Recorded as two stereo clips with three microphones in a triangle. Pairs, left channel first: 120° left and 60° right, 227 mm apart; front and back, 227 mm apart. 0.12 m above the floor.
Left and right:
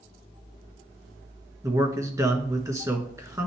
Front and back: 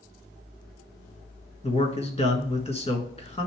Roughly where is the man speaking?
Ahead.